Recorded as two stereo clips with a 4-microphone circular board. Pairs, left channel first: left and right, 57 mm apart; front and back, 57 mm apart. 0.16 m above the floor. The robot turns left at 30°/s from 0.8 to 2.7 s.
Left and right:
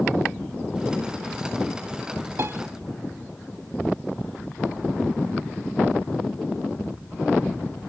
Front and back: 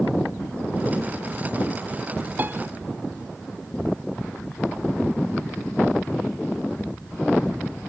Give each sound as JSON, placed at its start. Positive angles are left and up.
{"t": 2.4, "sound": "a piano", "azimuth_deg": -125, "distance_m": 1.0}